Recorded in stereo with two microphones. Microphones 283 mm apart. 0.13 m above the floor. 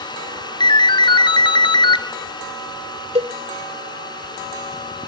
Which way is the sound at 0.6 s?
15° left (ahead or behind).